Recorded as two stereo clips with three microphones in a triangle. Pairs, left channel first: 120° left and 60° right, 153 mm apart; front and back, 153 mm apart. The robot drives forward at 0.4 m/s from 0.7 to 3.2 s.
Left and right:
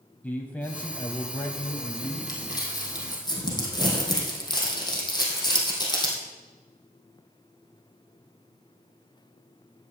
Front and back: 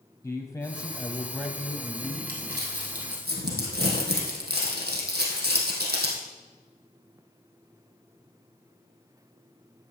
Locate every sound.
0.2 s a man speaking: 50° left, 1.1 m; by 2.2 s 120° left, 1.0 m
2.3 s crumpling: 175° right, 2.5 m